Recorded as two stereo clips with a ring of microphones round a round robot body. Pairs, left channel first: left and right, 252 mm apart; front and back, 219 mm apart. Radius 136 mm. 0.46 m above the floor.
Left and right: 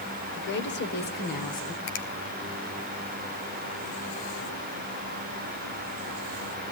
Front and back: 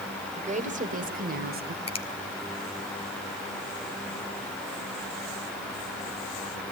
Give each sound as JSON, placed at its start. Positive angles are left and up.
{"t": 0.3, "sound": "a woman speaking", "azimuth_deg": 125, "distance_m": 2.5}
{"t": 1.9, "sound": "a finger snap", "azimuth_deg": 60, "distance_m": 2.0}